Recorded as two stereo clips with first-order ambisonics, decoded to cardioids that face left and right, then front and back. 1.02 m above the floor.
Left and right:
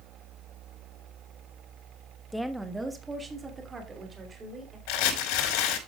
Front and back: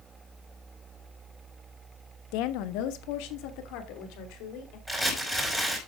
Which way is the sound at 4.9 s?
90° left.